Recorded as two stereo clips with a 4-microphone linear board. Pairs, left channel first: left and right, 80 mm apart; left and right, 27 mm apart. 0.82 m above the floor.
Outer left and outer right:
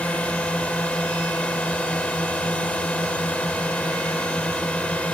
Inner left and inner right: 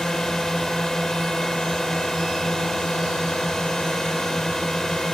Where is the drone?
15° left (ahead or behind).